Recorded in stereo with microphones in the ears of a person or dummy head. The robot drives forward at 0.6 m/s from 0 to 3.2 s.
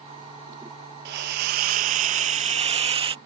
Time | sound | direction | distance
1.1 | a hiss | 45° right (ahead or behind) | ?